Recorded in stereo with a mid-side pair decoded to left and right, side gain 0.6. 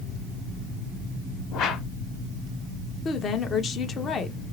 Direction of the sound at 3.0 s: 40° left.